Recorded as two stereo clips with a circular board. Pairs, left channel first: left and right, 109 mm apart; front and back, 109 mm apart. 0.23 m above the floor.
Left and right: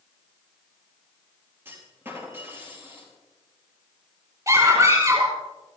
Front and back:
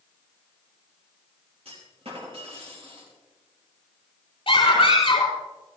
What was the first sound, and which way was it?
A clunk, 160° right.